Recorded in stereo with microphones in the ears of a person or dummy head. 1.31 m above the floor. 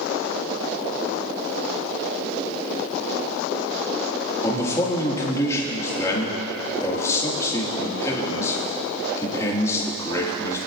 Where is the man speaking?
20° left (ahead or behind), 2.5 m.